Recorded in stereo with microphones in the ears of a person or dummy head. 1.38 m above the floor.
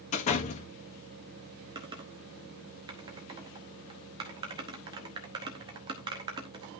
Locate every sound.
0.1 s a door slam: 45° left (ahead or behind), 1.6 m
1.8 s typing on a keyboard: 20° right (ahead or behind), 0.9 m